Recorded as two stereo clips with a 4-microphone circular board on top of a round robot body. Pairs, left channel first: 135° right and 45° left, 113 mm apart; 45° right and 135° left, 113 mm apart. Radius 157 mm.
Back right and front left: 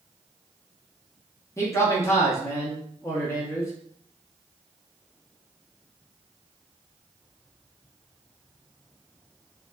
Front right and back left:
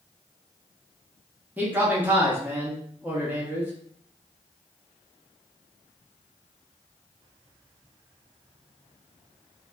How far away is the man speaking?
About 0.9 m.